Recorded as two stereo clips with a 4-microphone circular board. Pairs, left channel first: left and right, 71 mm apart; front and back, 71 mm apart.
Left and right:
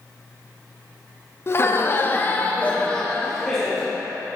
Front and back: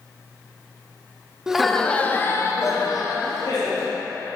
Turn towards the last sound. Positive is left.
turn(degrees=5)